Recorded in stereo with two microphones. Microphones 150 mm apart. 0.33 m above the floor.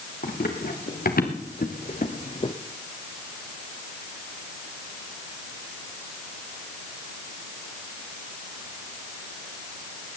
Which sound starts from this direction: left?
Running footsteps, at 0.2 s.